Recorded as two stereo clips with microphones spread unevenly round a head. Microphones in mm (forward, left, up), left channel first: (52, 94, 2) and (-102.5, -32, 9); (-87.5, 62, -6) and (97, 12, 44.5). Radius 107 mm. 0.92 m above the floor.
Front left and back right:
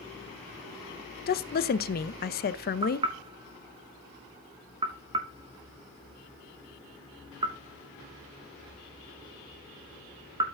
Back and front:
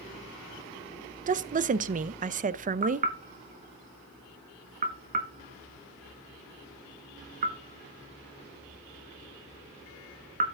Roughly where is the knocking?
Right.